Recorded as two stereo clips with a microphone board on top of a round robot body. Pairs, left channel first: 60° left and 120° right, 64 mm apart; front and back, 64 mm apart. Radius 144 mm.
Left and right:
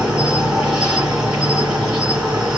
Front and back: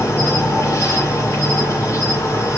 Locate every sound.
0.0 s an insect: 45° right, 3 m